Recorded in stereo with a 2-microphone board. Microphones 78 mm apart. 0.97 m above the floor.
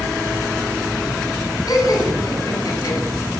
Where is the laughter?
55° left (ahead or behind), 10 m; by 3.0 s 50° left (ahead or behind), 9.5 m.